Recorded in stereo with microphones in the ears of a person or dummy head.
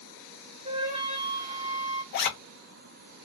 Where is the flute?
30° right (ahead or behind), 0.6 m.